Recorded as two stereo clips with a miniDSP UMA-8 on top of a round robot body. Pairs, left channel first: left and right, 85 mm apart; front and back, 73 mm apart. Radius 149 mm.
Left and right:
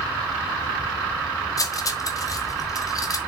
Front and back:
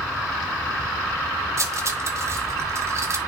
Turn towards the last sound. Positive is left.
turn(degrees=135)